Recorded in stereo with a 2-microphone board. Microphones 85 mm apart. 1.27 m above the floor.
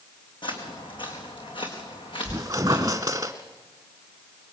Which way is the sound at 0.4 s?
70° left (ahead or behind).